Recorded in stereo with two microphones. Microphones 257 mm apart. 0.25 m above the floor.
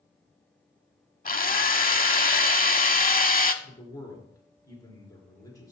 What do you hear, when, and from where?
1.2 s a drill: 35° left (ahead or behind), 0.6 m
3.6 s a man speaking: 15° left (ahead or behind), 3.5 m